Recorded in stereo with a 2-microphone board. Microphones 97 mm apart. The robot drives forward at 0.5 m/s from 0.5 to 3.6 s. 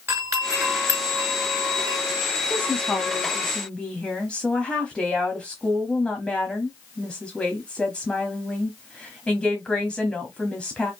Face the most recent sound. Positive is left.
turn(degrees=10)  # may be behind; listen again after turning